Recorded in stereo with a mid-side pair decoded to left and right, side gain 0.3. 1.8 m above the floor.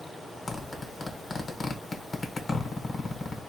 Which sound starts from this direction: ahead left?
A zipper, at 0.5 s.